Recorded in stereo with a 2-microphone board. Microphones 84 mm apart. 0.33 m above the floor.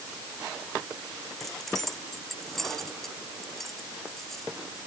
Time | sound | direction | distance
1.4 | keys jangling | 5° left (ahead or behind) | ?